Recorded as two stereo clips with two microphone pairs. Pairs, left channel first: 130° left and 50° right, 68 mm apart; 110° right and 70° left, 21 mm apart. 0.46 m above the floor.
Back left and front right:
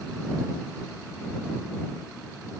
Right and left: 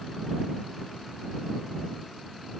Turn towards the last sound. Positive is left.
No sound to turn to.